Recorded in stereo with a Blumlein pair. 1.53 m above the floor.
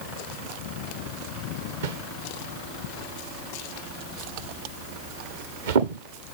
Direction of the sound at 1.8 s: 60° right.